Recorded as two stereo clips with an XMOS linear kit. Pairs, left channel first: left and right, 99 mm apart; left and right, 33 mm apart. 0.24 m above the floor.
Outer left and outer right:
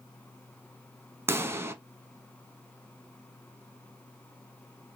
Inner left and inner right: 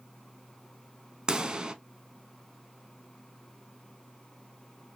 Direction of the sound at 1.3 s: 25° right (ahead or behind).